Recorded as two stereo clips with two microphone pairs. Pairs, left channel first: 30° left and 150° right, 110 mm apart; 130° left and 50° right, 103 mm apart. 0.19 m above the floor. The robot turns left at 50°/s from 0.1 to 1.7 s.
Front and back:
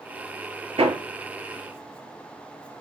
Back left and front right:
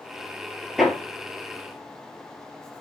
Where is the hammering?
140° right, 1.9 m; by 2.8 s 175° left, 1.9 m.